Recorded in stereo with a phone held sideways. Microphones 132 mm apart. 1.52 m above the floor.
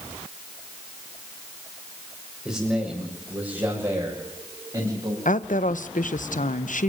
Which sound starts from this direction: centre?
A man speaking, at 2.5 s.